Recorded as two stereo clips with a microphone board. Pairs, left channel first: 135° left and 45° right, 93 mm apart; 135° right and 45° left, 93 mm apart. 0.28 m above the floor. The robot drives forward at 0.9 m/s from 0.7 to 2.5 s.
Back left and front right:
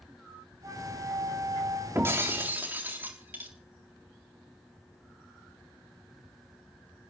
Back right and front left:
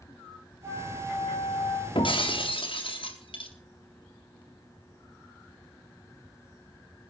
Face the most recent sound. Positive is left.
turn(degrees=-115)